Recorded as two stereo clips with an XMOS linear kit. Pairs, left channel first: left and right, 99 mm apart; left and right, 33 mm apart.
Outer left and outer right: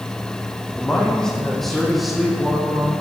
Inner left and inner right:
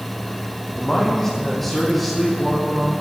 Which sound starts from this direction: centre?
A man speaking, at 0.8 s.